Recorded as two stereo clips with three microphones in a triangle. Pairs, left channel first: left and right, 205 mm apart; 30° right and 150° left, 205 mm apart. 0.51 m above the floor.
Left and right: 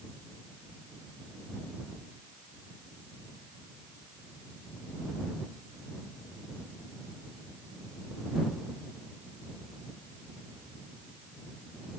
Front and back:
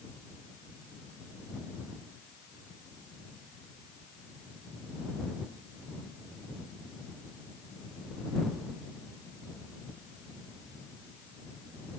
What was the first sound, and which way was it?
Only background noise.